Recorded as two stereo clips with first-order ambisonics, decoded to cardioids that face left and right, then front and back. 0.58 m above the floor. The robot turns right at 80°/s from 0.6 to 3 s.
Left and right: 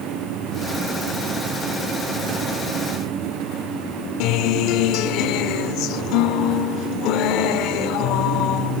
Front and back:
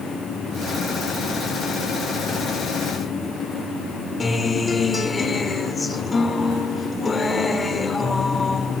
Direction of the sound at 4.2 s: 70° left.